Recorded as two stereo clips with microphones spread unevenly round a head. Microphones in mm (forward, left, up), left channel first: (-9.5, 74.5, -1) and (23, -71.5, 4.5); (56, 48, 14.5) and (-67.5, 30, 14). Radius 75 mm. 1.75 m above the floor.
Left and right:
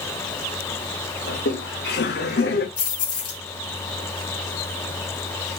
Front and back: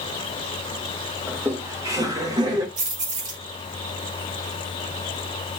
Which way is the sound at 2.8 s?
165° left.